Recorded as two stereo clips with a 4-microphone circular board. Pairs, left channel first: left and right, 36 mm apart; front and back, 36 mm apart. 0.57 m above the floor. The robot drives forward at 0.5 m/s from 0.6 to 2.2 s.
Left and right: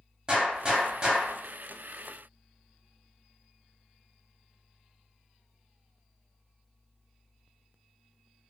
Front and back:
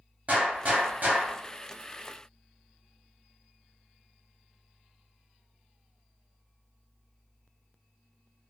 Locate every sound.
0.3 s a gunshot: 145° right, 0.8 m; by 1.4 s 155° right, 1.1 m